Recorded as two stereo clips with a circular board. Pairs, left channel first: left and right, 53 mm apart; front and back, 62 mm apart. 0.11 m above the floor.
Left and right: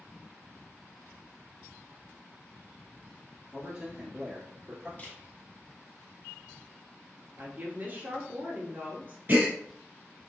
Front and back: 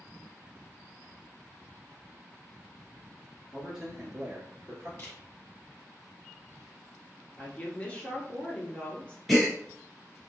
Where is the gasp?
90° right, 1.7 m.